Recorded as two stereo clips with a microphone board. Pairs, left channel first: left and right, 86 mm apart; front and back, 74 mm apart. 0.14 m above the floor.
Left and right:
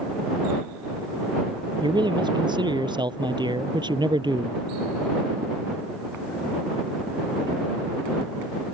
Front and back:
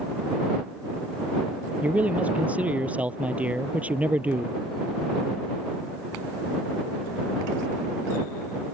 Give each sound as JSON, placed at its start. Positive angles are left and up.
{"t": 1.8, "sound": "a man speaking", "azimuth_deg": -110}